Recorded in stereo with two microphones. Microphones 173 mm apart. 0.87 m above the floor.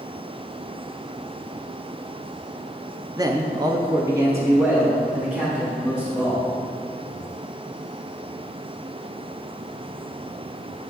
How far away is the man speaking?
About 0.5 m.